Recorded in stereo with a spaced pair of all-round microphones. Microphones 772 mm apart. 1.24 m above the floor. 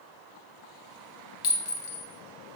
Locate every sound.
1.4 s a clink: 45° left (ahead or behind), 0.6 m